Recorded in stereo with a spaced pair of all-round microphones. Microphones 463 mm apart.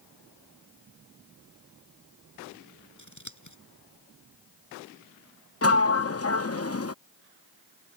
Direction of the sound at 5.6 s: 30° left (ahead or behind).